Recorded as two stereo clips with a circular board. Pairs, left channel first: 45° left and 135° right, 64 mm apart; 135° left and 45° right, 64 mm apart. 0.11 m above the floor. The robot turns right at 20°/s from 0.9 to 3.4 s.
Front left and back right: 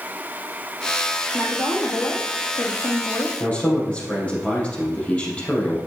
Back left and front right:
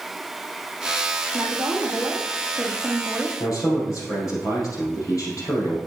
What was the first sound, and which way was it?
A woman speaking, 15° left.